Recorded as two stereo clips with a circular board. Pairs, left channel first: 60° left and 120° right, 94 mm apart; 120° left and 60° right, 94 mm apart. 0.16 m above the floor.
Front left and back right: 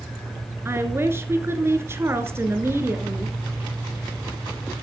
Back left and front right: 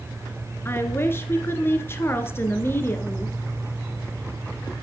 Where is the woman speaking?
Straight behind, 2.0 m.